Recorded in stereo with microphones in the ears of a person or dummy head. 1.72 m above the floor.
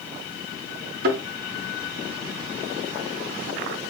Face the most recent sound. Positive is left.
turn(degrees=-60)  # may be behind; listen again after turning